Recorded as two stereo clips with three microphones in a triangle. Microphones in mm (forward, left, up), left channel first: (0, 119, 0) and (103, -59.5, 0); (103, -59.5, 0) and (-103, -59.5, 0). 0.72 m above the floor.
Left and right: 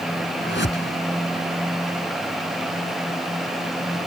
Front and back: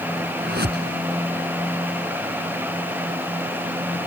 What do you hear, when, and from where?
0.4 s a whoosh: 145° left